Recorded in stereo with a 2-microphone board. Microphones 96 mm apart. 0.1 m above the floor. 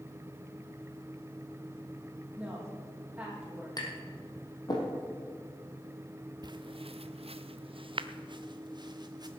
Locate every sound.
2.4 s a woman speaking: 10° right (ahead or behind), 4.5 m
3.8 s tapping: 45° left (ahead or behind), 3 m
6.4 s footsteps: 45° right (ahead or behind), 0.5 m